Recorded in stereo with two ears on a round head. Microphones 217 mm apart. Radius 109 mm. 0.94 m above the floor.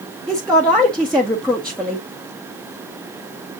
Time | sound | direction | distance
0.3 | a woman speaking | 5° left (ahead or behind) | 0.7 m